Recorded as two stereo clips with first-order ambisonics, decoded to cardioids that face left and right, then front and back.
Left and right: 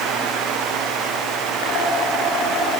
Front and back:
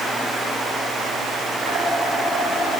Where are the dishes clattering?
120° left, 8 m.